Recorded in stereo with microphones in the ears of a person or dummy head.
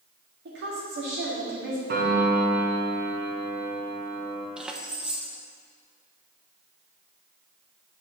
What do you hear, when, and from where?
0.5 s a woman speaking: 60° right (ahead or behind), 2.5 m
1.9 s a piano: 50° right (ahead or behind), 1.6 m
4.6 s keys jangling: 5° right (ahead or behind), 0.6 m